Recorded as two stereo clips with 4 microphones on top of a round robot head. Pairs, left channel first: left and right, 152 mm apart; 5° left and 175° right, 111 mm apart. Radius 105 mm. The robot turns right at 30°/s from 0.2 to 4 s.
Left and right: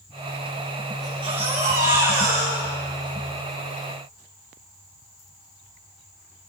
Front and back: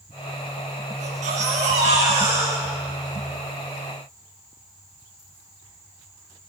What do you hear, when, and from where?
1.0 s a baby crying: 160° right, 8 m; by 3.1 s 95° right, 8 m